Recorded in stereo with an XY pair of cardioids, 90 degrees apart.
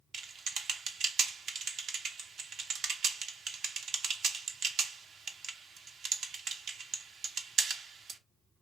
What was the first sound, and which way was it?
Typing on a keyboard, 70° right.